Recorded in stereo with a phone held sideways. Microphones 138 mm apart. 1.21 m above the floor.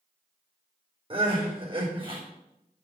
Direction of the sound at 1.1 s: 35° right (ahead or behind).